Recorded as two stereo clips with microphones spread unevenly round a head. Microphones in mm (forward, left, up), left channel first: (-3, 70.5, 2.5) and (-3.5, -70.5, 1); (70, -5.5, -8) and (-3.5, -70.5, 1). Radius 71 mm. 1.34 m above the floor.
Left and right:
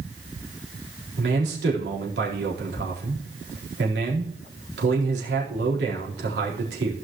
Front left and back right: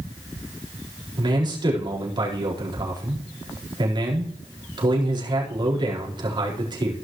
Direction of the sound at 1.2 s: 100° right.